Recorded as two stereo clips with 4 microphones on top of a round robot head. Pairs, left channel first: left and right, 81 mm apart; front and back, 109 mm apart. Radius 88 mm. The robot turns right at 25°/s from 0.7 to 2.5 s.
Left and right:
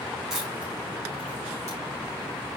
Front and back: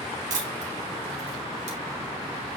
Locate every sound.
0.3 s a camera shutter: 175° right, 2 m; by 1.8 s 150° right, 2 m